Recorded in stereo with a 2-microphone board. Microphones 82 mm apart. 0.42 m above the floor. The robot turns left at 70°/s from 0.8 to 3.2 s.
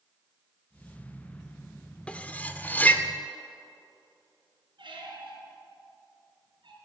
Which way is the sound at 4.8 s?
80° right.